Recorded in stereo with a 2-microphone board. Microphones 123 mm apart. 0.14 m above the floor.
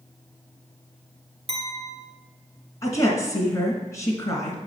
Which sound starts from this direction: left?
A woman speaking, at 2.8 s.